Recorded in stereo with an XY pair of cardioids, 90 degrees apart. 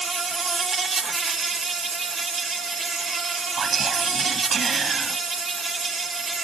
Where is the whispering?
55° right.